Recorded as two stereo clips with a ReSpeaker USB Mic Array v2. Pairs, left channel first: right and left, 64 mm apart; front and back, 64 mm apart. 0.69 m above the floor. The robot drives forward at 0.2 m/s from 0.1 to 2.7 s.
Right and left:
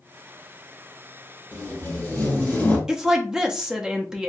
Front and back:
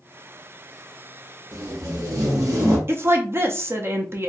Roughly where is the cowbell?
I don't hear a cowbell.